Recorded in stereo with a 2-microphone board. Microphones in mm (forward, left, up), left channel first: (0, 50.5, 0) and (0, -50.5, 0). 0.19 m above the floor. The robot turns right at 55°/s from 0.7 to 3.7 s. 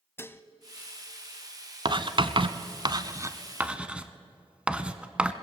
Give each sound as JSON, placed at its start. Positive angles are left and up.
{"t": 0.2, "sound": "dishes clattering", "side_deg": 25, "distance_m": 0.7}
{"t": 1.9, "sound": "writing", "side_deg": -45, "distance_m": 0.9}